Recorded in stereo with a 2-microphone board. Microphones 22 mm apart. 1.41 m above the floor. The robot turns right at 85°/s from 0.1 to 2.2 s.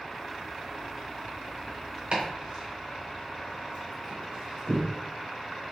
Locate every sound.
2.1 s chopping: 60° right (ahead or behind), 2.0 m; by 4.8 s 55° right (ahead or behind), 2.0 m